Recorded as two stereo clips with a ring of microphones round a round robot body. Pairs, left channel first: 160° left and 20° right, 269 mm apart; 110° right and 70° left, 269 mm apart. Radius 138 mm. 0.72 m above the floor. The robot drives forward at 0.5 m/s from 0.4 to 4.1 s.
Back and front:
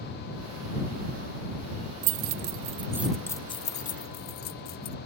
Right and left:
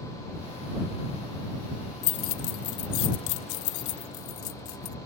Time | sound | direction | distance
2.0 | keys jangling | 55° right | ?